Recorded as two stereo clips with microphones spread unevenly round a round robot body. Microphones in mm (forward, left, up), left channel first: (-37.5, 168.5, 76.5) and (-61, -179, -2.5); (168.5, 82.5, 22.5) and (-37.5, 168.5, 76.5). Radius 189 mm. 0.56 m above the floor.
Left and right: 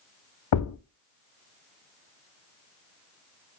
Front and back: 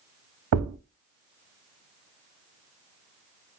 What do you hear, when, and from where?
0.5 s a thud: 135° left, 0.6 m